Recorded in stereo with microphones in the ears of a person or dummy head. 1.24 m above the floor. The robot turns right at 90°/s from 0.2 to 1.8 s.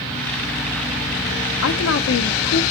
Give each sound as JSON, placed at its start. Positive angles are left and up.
{"t": 1.6, "sound": "a woman speaking", "side_deg": 60, "distance_m": 0.9}